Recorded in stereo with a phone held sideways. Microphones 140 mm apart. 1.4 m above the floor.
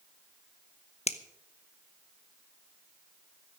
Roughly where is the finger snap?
Left.